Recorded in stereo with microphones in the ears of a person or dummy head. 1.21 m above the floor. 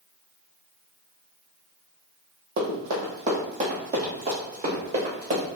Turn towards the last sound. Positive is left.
turn(degrees=-40)  # may be behind; listen again after turning